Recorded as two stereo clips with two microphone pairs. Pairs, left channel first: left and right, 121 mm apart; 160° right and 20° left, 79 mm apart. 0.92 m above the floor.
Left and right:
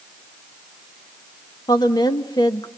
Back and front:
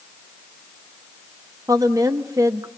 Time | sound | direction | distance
1.7 | a woman speaking | 45° left | 1.0 m